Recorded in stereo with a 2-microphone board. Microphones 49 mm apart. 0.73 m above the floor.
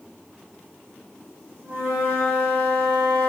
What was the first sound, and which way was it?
A flute, 50° right (ahead or behind).